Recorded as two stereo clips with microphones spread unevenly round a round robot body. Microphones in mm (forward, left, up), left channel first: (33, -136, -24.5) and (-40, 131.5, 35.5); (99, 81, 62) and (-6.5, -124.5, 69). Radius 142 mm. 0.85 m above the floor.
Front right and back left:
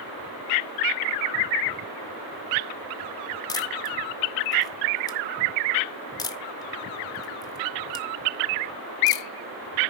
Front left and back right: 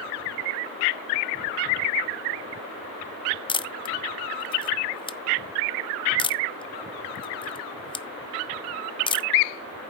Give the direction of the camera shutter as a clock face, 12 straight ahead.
12 o'clock.